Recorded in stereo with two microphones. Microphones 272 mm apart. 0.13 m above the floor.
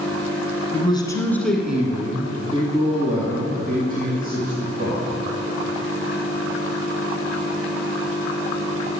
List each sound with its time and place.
0.7 s a man speaking: 20° left (ahead or behind), 1.4 m; by 5.1 s 35° right (ahead or behind), 3.5 m